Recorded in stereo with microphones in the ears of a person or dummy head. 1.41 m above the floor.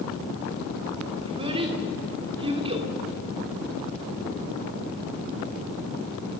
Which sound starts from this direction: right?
A child speaking, at 1.2 s.